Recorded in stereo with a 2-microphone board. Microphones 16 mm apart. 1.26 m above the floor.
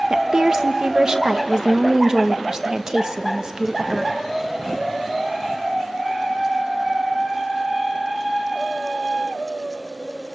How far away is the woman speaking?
About 1.1 m.